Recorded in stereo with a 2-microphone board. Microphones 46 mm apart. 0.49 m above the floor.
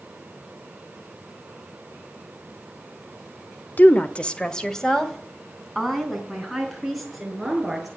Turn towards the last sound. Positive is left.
turn(degrees=-5)  # may be behind; listen again after turning